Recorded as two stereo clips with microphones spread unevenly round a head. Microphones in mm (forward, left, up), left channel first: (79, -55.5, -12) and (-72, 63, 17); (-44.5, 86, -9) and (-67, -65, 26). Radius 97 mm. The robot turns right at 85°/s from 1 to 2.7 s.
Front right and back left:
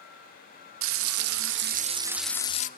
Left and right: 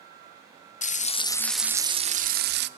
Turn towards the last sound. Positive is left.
turn(degrees=-90)